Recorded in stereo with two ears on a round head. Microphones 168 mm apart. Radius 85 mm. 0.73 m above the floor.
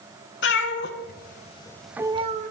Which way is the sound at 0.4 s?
65° left (ahead or behind).